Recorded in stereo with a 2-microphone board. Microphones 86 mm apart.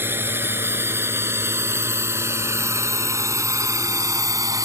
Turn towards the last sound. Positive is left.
turn(degrees=-45)  # may be behind; listen again after turning